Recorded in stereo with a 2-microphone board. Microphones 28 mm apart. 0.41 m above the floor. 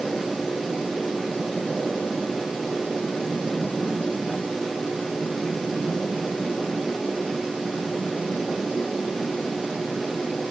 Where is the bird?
No bird in this recording.